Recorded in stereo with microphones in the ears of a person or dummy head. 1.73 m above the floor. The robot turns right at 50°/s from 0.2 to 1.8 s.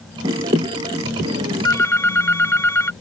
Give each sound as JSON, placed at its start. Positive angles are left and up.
{"t": 1.6, "sound": "a phone ringing", "side_deg": 10}